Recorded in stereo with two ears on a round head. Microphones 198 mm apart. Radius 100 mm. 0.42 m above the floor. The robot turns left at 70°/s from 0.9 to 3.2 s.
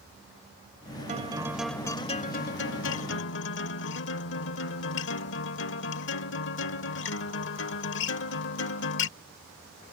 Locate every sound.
1.1 s a guitar: 140° right; by 9.1 s 70° left